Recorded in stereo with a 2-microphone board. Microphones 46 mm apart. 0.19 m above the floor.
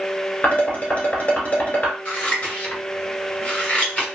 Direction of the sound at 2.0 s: 25° left (ahead or behind).